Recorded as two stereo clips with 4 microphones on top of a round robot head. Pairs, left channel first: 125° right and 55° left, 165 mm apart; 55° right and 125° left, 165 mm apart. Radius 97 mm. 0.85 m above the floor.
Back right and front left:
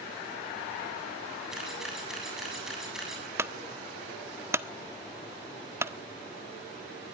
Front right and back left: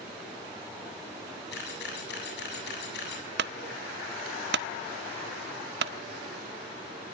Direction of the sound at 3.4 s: 130° left.